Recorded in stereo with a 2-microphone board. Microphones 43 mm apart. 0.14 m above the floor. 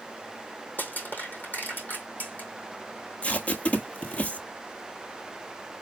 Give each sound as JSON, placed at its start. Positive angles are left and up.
{"t": 0.8, "sound": "crushing", "side_deg": 50, "distance_m": 2.5}
{"t": 3.2, "sound": "tape being pulled", "side_deg": 30, "distance_m": 0.9}